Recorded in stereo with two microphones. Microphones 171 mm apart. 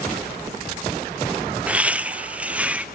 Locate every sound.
1.7 s laughter: 10° right (ahead or behind), 0.6 m